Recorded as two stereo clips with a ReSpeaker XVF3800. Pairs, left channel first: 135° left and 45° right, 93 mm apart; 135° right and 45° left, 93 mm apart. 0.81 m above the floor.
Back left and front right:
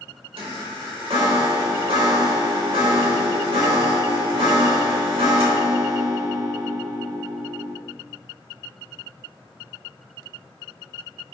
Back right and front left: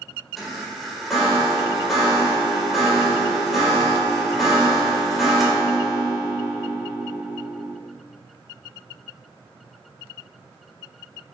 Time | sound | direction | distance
0.4 | a chime | 45° right | 3 m